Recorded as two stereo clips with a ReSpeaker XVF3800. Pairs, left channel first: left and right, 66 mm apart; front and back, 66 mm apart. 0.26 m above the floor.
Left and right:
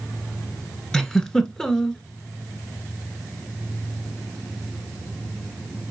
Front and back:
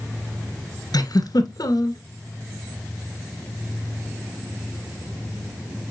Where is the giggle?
5° left, 0.8 m.